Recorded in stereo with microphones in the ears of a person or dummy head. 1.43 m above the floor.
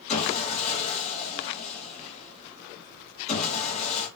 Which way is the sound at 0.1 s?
40° left (ahead or behind).